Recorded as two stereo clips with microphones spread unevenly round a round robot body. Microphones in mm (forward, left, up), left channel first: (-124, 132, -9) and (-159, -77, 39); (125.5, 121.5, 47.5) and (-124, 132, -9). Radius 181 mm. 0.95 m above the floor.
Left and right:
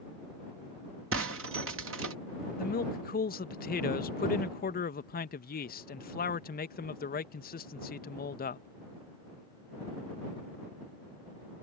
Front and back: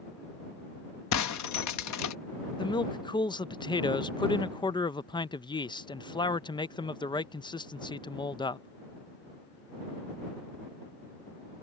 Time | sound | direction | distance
1.1 | breaking glass | 45° right | ?
2.6 | a man speaking | 80° left | ?